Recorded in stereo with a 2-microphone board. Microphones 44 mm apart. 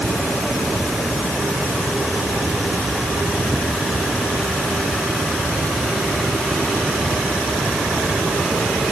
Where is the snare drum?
No snare drum in this recording.